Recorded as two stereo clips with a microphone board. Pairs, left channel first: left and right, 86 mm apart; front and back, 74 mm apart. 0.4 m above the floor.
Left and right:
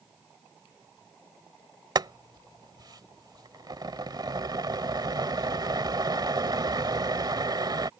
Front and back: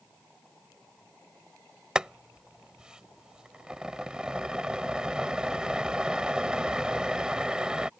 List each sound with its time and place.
1.9 s boiling: 105° right